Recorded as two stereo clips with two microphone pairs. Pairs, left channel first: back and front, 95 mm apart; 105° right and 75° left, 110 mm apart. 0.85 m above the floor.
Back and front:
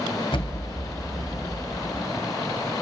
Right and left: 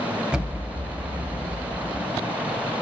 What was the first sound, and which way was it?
An explosion, 150° left.